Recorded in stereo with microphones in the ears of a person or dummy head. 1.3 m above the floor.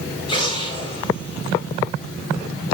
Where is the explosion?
30° left (ahead or behind), 4.5 m.